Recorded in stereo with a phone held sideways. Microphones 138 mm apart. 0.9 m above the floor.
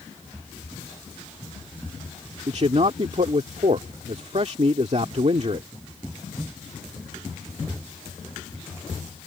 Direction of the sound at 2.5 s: 50° right (ahead or behind).